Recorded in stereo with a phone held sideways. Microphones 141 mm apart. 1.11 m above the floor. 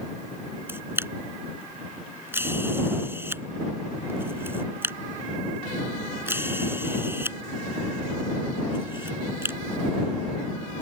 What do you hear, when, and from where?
0.7 s a camera shutter: 15° right (ahead or behind)